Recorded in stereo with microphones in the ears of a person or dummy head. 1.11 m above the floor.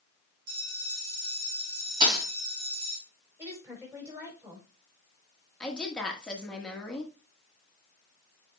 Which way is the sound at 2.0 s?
25° right (ahead or behind).